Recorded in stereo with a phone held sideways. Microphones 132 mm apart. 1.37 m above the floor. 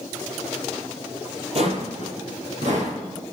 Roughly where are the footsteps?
Right.